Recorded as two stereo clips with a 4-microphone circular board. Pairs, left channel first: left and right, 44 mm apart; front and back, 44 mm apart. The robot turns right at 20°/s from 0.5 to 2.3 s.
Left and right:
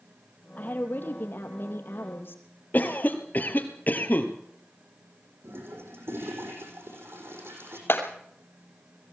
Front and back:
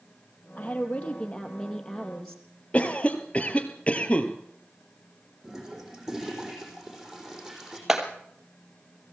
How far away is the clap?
About 3 m.